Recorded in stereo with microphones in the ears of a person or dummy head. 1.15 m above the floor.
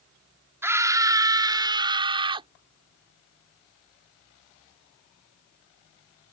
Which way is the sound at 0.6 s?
15° right (ahead or behind).